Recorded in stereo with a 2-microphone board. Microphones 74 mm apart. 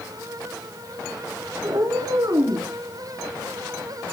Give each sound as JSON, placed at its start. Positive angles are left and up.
{"t": 1.6, "sound": "a cat meowing", "side_deg": -60, "distance_m": 3.0}